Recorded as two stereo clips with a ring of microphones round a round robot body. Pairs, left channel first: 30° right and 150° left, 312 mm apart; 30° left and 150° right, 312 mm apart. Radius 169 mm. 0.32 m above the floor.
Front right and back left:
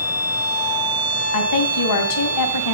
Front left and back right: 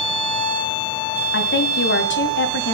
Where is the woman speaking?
20° right, 2.5 m.